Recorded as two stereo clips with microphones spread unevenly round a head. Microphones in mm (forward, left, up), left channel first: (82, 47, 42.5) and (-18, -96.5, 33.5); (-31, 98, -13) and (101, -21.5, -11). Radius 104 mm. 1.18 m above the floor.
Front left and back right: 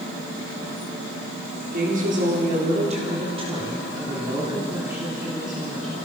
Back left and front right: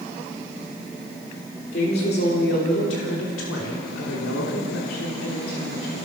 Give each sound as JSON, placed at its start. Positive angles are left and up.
{"t": 1.7, "sound": "a woman speaking", "azimuth_deg": -170, "distance_m": 4.0}